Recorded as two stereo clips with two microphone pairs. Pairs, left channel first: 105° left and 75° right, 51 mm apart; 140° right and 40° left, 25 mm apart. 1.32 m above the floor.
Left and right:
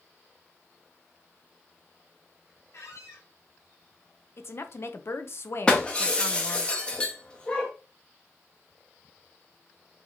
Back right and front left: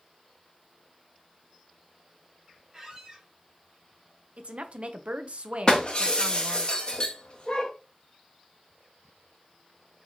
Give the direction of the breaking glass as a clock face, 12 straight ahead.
6 o'clock.